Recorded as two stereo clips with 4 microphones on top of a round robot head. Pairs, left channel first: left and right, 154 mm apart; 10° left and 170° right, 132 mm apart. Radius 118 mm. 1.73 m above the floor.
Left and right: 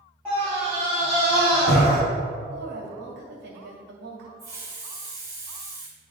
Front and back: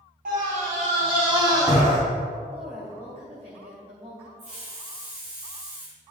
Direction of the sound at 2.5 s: 105° right.